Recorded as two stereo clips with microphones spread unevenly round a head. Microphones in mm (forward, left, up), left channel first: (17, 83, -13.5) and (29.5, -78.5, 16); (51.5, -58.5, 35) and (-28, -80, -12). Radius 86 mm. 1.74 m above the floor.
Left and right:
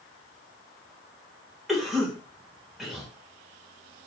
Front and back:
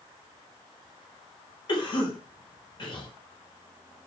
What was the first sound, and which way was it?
A cough, straight ahead.